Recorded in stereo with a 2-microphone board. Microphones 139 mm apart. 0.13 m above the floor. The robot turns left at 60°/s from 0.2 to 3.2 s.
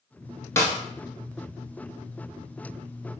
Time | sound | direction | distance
0.6 | a snare drum | 20° left (ahead or behind) | 0.7 m